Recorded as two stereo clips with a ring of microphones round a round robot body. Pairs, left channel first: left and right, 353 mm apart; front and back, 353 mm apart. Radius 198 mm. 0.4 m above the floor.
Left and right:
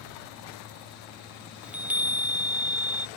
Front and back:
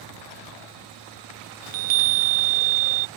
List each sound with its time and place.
1.6 s a chime: 175° right